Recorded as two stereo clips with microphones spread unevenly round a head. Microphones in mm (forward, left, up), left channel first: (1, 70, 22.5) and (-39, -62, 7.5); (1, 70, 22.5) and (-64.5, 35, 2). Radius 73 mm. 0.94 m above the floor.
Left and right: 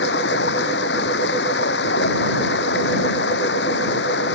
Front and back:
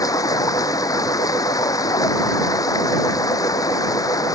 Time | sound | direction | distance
0.0 | running water | 65° left | ?